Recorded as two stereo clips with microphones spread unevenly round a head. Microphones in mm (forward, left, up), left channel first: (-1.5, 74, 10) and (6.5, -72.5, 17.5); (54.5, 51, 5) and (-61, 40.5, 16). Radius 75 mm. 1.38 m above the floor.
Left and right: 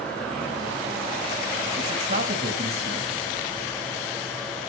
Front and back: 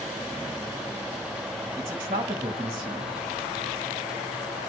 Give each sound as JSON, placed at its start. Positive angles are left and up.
{"t": 1.8, "sound": "a man speaking", "azimuth_deg": -105, "distance_m": 1.7}